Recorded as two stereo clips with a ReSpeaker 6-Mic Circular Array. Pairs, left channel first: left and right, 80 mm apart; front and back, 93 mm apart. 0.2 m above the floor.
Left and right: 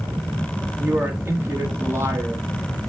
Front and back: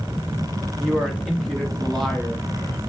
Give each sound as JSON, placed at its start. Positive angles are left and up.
{"t": 0.8, "sound": "a man speaking", "azimuth_deg": -85, "distance_m": 1.1}